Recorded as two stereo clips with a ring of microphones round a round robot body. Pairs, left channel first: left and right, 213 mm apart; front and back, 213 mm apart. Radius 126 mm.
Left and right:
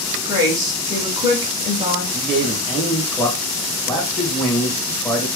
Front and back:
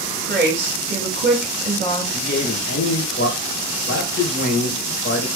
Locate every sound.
0.2 s a woman speaking: 145° right, 1.4 m
2.1 s a man speaking: 5° left, 1.8 m